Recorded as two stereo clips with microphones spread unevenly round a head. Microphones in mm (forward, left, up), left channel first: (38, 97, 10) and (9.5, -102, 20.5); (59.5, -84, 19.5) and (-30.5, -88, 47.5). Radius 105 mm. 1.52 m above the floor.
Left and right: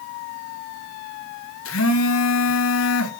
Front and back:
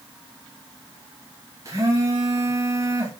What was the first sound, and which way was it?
A phone buzzing, 110° left.